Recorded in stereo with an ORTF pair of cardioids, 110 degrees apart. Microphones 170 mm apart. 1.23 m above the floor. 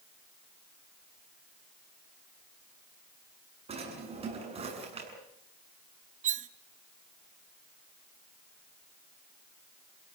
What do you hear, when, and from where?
3.7 s a drawer: 35° right, 8 m
6.2 s cutlery clinking: 50° right, 0.8 m